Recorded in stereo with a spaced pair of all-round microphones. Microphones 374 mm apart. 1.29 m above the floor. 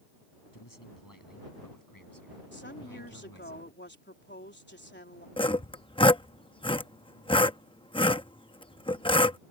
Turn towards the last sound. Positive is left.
turn(degrees=15)  # may be behind; listen again after turning